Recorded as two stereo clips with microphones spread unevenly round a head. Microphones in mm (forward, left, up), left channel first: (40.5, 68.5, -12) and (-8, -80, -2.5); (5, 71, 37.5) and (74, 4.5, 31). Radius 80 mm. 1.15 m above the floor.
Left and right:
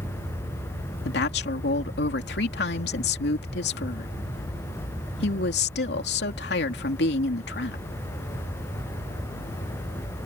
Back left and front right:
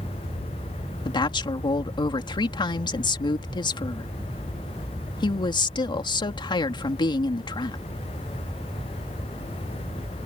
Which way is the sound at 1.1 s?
100° left.